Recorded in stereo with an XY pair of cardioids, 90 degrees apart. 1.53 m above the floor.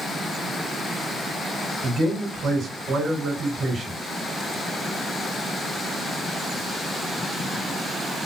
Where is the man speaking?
55° right, 3 m.